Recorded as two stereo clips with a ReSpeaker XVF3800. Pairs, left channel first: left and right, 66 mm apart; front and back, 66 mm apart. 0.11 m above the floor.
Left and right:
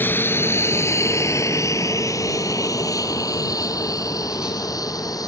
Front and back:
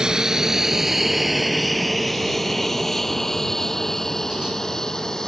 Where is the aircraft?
110° left; by 5.3 s 80° left.